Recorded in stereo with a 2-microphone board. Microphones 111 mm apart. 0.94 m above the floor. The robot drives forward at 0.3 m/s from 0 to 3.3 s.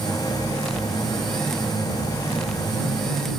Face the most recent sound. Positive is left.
No sound to turn to.